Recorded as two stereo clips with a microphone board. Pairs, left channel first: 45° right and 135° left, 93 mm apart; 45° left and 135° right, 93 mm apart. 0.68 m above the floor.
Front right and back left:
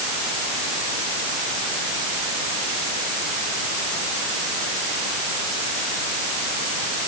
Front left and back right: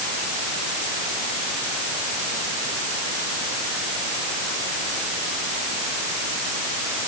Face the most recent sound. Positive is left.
No sound to turn to.